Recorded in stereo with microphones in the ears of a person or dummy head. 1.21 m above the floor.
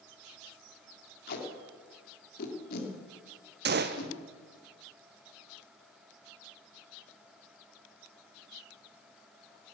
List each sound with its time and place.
1.3 s tape being pulled: 55° left (ahead or behind), 2.5 m
3.6 s a gunshot: 50° right (ahead or behind), 0.8 m